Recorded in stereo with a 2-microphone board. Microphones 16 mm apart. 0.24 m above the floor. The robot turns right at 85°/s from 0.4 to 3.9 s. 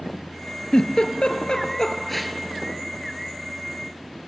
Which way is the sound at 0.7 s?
45° left (ahead or behind).